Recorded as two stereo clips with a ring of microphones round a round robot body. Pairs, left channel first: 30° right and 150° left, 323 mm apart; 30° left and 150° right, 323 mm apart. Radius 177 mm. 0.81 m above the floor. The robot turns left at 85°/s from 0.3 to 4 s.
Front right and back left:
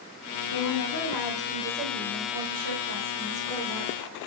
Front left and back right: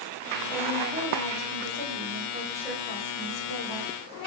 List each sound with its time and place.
0.5 s a woman speaking: 55° right, 3 m; by 3.9 s 15° left, 3 m